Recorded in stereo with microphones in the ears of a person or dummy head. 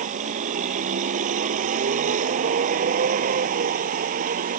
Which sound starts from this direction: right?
A vehicle, at 0.0 s.